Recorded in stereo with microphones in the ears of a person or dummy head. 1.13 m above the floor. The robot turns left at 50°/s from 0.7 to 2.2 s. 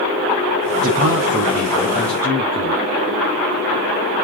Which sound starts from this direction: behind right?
A man speaking, at 0.8 s.